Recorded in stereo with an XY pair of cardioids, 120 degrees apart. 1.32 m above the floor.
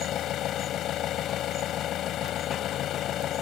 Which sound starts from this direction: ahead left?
An engine running, at 0.0 s.